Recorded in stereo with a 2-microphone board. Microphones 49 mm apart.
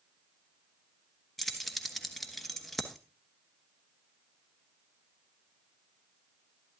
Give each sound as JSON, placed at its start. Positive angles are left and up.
{"t": 1.4, "sound": "keys jangling", "side_deg": 5, "distance_m": 1.0}